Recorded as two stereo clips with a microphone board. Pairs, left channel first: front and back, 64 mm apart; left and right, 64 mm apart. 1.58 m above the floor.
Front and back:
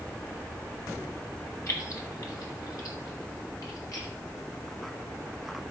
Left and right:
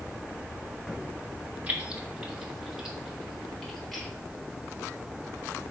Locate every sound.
1.7 s keys jangling: 30° right, 1.5 m; by 4.1 s 5° left, 3 m